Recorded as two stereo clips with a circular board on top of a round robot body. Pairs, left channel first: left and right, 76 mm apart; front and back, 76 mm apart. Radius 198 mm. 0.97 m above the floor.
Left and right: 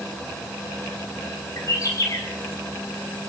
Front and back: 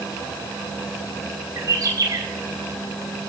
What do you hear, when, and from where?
1.6 s a bird: 135° left, 4 m